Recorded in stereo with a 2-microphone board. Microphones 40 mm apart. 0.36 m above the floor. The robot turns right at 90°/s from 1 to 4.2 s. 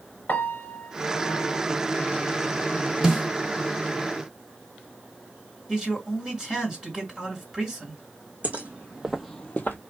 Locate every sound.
0.3 s a piano: 60° left, 0.8 m; by 1.6 s 115° left, 0.8 m
3.0 s a snare drum: 15° right (ahead or behind), 1.0 m; by 3.3 s 5° right (ahead or behind), 1.0 m
5.7 s a man speaking: 20° right (ahead or behind), 2 m
8.4 s footsteps: 40° right (ahead or behind), 1.4 m; by 9.8 s 55° left (ahead or behind), 0.9 m